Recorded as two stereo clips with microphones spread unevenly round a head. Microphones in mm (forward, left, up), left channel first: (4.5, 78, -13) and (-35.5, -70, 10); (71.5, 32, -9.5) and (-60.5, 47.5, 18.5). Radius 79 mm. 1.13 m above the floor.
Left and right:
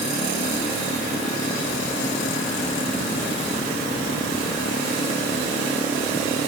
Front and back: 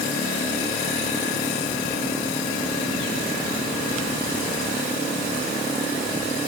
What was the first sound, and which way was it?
Only background noise.